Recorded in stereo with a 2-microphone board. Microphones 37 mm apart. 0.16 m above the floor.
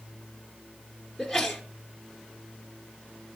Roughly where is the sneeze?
Centre.